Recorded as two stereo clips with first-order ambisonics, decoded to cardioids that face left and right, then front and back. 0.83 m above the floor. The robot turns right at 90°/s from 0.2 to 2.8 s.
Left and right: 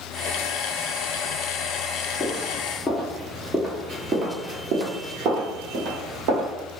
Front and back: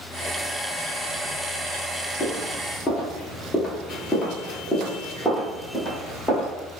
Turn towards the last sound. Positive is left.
turn(degrees=-80)